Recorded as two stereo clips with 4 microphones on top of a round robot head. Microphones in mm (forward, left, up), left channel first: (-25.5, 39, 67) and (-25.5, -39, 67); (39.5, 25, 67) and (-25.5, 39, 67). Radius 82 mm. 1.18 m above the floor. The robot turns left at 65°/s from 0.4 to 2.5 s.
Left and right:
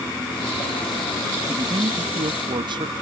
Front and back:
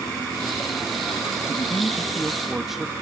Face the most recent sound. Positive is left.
turn(degrees=-105)